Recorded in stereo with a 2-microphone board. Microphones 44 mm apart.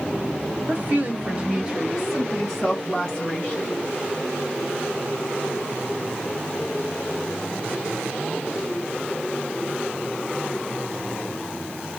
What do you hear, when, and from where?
0.7 s a woman speaking: 45° right (ahead or behind), 1.5 m; by 3.7 s 20° left (ahead or behind), 2 m